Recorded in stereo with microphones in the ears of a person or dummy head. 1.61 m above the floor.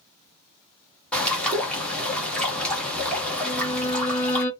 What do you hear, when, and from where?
1.1 s a bird: 10° left (ahead or behind), 1.3 m
3.4 s a violin: 35° left (ahead or behind), 1.2 m